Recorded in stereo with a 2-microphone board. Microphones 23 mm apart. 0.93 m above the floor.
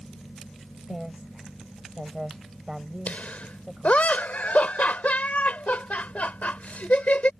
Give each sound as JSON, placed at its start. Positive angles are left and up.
{"t": 0.9, "sound": "a woman speaking", "side_deg": -25}
{"t": 3.1, "sound": "laughter", "side_deg": 80}